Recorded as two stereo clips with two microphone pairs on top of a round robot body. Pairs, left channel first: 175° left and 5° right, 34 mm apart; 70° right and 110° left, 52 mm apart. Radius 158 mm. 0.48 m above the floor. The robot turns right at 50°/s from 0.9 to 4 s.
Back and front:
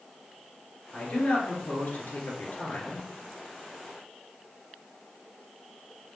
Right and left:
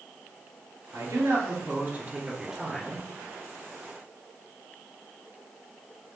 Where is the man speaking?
120° left, 2.5 m; by 3.0 s 135° right, 2.5 m.